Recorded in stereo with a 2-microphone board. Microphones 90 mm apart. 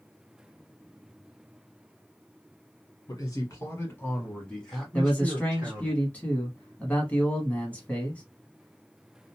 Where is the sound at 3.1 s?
45° left (ahead or behind), 1.4 m; by 5.9 s 25° right (ahead or behind), 1.4 m.